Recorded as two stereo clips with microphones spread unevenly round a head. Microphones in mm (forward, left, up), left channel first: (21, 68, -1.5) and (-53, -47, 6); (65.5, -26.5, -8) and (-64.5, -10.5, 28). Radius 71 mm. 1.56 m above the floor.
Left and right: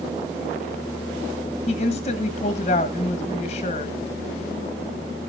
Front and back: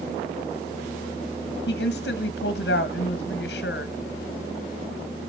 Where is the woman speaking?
10° left, 1.5 m.